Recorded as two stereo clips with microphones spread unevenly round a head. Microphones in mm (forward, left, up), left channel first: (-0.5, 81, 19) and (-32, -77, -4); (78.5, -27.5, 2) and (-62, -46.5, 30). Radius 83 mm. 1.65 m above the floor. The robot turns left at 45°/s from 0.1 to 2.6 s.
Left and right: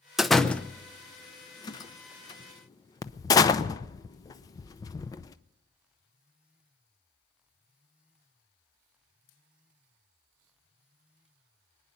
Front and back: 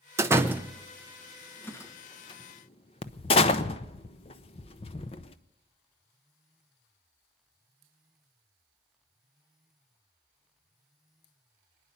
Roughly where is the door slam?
Behind.